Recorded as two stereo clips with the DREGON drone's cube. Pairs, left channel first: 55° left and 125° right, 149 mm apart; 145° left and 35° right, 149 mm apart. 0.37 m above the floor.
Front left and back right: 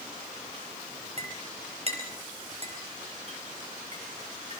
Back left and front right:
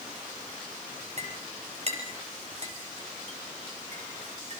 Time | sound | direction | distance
1.2 | a clink | 80° right | 5.5 m